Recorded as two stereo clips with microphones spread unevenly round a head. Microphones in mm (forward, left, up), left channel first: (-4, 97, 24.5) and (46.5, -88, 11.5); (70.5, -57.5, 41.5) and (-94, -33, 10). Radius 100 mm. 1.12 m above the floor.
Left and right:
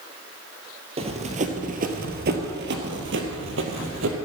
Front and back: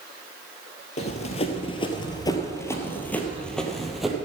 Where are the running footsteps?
20° right, 1.6 m; by 4.2 s 95° right, 2.0 m.